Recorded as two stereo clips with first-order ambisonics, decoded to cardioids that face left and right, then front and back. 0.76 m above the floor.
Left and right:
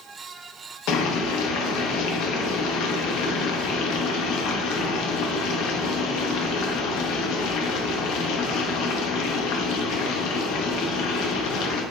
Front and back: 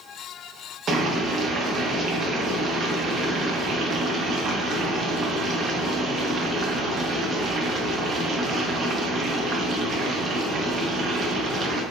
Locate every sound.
0.9 s boiling: 115° left, 0.6 m